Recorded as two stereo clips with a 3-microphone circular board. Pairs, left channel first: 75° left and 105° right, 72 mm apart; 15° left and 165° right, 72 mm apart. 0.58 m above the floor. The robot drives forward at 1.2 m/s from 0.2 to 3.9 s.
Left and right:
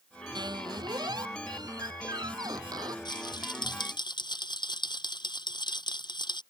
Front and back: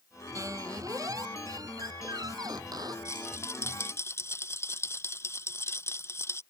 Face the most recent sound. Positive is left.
turn(degrees=70)